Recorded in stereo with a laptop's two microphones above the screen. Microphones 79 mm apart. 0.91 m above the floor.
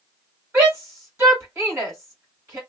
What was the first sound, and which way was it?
A shout, 30° right (ahead or behind).